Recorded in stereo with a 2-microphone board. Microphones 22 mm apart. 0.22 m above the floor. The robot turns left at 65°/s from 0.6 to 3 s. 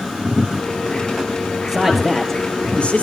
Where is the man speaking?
160° right, 4.5 m; by 3.0 s 115° left, 4.5 m.